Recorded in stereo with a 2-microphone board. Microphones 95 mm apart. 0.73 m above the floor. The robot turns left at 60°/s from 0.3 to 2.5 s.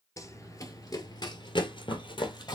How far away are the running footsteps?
About 0.9 m.